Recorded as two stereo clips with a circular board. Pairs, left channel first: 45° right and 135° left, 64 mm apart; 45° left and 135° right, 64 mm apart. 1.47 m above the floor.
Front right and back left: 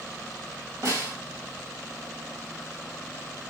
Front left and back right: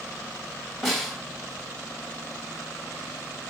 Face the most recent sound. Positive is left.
turn(degrees=135)